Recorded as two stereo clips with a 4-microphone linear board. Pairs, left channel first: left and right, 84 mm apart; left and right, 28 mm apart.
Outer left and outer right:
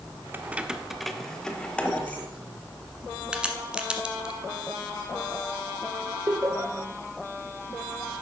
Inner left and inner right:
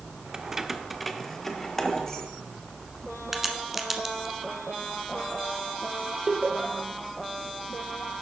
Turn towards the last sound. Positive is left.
turn(degrees=-40)  # may be behind; listen again after turning